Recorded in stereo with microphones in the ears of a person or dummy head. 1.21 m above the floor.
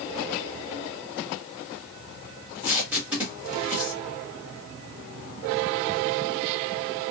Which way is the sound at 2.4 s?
10° right (ahead or behind).